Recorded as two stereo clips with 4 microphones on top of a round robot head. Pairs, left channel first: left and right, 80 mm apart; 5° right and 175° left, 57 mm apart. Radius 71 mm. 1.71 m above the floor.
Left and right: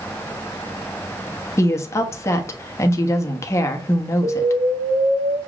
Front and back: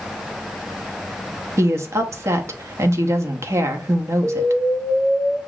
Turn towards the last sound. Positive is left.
turn(degrees=-80)